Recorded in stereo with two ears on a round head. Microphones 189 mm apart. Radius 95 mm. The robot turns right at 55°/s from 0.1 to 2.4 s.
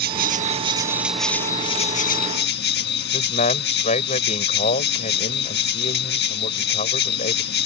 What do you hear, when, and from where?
0.0 s an insect: 60° right; by 7.7 s 70° left
3.1 s a man speaking: 35° left (ahead or behind)